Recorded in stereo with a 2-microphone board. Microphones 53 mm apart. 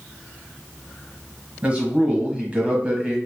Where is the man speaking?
25° right (ahead or behind), 1.0 m.